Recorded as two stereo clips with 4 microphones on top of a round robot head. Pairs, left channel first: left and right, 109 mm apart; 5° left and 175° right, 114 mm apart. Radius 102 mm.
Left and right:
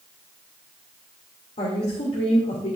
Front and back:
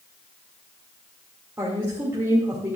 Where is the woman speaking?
120° left, 2 m.